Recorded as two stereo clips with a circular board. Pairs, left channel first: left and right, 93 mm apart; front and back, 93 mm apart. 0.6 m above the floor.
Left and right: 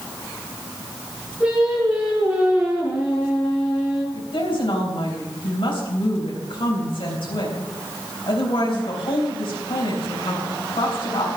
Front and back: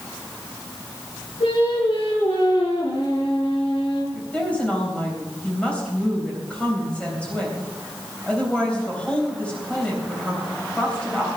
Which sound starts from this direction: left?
A woman speaking, at 4.1 s.